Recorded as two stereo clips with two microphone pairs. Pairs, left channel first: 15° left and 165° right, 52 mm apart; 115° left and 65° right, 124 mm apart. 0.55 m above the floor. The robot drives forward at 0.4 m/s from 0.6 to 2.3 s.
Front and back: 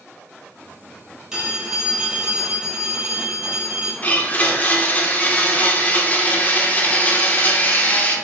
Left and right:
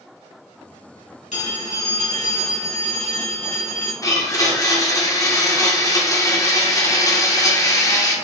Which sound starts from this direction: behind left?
A phone ringing, at 1.3 s.